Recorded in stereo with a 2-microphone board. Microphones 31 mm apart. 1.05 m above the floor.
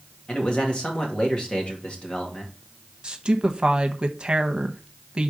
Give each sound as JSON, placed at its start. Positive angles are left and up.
{"t": 0.3, "sound": "a man speaking", "side_deg": 35, "distance_m": 2.0}
{"t": 3.0, "sound": "a woman speaking", "side_deg": -30, "distance_m": 0.9}